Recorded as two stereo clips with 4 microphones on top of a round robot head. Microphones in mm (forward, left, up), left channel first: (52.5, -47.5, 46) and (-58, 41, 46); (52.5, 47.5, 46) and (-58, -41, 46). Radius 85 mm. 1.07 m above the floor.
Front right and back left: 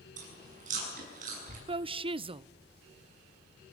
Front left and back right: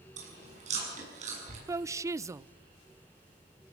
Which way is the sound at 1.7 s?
160° left.